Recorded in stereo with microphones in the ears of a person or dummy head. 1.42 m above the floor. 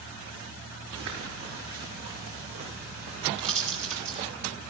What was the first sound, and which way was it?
Footsteps, 65° right (ahead or behind).